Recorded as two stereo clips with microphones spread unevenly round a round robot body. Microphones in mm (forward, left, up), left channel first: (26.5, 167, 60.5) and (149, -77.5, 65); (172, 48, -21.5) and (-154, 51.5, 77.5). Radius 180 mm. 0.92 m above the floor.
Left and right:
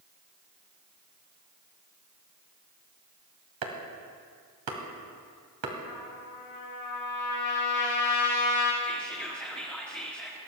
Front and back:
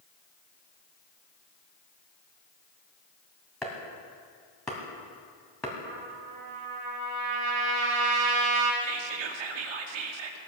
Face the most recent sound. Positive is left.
turn(degrees=-155)